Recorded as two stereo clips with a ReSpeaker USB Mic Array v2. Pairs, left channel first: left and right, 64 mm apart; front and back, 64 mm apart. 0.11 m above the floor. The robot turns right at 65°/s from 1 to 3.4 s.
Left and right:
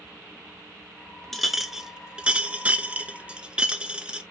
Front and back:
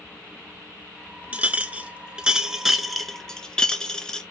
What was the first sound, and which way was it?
A clink, 170° left.